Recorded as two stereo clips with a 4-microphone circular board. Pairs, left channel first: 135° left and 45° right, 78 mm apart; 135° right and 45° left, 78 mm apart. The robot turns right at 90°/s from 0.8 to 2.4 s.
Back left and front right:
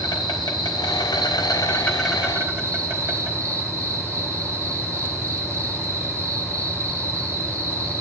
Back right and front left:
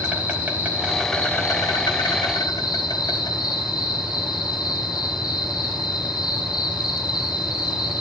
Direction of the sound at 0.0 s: 115° left.